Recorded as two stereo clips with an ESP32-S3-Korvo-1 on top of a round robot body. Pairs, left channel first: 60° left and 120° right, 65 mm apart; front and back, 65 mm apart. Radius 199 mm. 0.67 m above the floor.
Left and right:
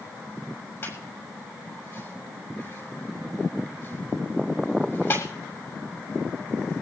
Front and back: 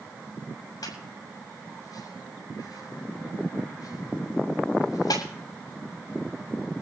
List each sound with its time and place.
0.8 s a squeak: 10° left, 6.5 m